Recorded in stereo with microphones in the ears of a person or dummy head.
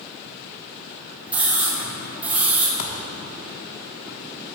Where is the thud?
60° left (ahead or behind), 1.5 m.